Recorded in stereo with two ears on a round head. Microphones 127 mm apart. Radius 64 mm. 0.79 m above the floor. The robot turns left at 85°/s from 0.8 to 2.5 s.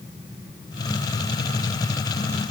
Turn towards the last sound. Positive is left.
No sound to turn to.